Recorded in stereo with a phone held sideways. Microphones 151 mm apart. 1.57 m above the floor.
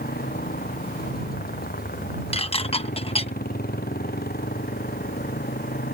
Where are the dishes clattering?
40° left (ahead or behind).